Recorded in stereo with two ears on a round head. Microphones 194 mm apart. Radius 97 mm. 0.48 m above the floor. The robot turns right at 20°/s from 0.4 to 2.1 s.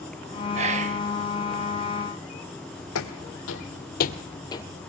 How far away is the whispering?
About 1.0 m.